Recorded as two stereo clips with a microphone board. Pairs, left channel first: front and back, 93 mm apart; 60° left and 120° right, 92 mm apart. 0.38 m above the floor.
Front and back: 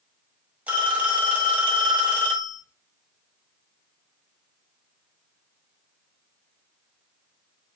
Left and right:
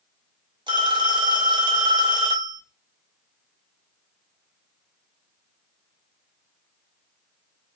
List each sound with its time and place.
0.7 s a phone ringing: 110° right, 1.4 m